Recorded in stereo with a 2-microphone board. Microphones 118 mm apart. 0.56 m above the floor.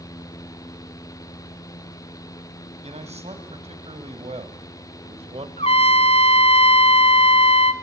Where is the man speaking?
75° right (ahead or behind), 3.5 m; by 5.5 s 70° right (ahead or behind), 2 m.